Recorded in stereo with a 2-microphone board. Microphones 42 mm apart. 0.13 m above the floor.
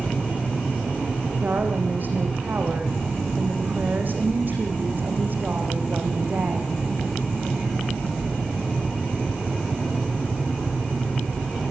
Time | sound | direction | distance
1.4 | a woman speaking | 50° right (ahead or behind) | 6.5 m